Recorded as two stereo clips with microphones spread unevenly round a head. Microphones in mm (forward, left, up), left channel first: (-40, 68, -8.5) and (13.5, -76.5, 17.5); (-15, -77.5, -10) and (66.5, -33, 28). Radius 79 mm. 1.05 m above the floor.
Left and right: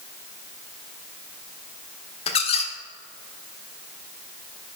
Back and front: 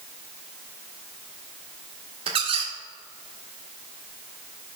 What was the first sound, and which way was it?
A squeak, 55° left.